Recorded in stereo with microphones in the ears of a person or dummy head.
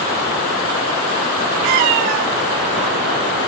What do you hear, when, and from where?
1.6 s a cat meowing: 30° right (ahead or behind), 1.1 m